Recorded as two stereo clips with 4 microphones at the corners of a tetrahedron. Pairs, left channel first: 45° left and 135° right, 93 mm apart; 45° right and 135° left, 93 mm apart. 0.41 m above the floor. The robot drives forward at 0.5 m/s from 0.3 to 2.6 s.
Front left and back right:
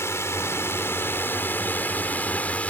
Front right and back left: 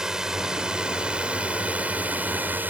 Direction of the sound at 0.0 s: 60° left.